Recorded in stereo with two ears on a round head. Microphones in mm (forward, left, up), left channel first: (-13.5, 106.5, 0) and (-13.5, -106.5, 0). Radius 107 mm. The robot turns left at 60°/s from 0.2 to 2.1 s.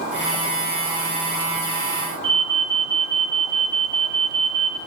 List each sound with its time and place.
2.2 s an alarm: 55° right (ahead or behind), 2.5 m